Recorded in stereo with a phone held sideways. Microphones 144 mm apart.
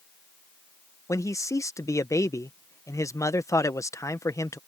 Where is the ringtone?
No ringtone in this recording.